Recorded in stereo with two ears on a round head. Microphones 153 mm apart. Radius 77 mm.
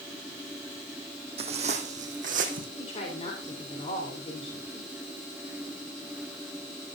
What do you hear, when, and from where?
1.4 s footsteps: 35° right (ahead or behind), 2.5 m; by 2.7 s 55° right (ahead or behind), 3 m
2.8 s a woman speaking: 35° left (ahead or behind), 3.5 m